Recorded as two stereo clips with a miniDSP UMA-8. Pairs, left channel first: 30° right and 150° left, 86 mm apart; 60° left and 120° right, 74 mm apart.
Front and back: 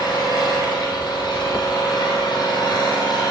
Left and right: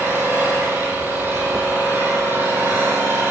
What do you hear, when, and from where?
0.0 s an engine running: 60° right, 3 m